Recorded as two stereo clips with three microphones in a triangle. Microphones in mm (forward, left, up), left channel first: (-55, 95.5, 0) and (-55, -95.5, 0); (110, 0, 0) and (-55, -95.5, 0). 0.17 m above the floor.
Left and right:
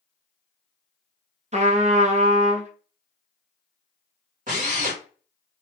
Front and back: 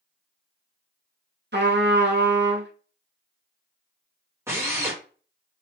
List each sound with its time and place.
1.5 s a trumpet: 140° right, 1.0 m
4.5 s a drill: 80° right, 2 m